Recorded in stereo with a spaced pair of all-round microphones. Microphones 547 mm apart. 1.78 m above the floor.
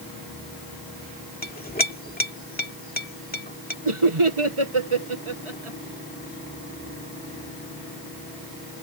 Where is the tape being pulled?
No tape being pulled in this recording.